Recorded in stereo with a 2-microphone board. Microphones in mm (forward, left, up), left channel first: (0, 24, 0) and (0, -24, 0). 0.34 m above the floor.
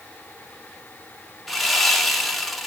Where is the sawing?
Centre (ahead or behind), 0.7 m.